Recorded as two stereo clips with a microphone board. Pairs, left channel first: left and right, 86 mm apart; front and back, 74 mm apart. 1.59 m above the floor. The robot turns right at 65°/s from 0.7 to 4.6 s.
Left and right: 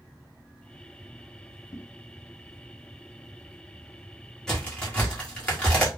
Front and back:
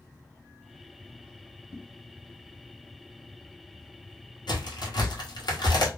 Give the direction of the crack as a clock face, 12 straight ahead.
12 o'clock.